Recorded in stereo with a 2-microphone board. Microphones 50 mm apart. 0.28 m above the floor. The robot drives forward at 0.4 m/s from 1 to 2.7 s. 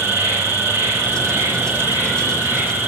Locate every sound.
0.0 s an insect: 50° right (ahead or behind), 3.5 m; by 2.9 s 45° right (ahead or behind), 4 m